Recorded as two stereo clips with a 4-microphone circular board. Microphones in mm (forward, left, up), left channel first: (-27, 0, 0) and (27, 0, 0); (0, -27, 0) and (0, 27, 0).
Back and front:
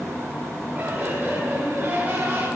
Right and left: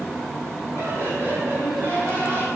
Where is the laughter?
55° left, 9 m; by 2.5 s 50° left, 8 m.